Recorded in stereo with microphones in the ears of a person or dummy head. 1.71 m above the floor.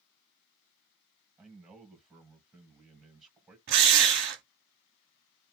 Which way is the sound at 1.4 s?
5° right (ahead or behind).